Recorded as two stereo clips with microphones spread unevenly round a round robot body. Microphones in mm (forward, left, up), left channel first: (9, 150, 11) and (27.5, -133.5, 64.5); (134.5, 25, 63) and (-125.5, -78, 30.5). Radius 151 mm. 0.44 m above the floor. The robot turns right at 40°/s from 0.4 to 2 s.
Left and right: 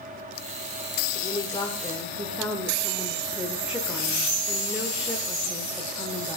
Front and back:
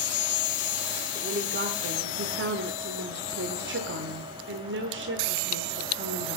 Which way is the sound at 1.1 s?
145° left.